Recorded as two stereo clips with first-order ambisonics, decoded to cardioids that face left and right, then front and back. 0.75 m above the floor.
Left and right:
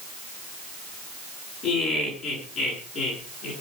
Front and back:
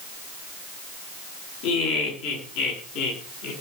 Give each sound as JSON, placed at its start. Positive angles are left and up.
{"t": 1.6, "sound": "laughter", "azimuth_deg": 20, "distance_m": 9.0}